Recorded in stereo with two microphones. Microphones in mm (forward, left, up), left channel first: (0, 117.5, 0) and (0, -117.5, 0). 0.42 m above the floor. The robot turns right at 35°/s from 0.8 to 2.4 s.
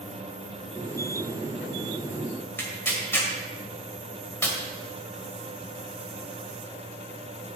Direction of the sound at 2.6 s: 10° left (ahead or behind).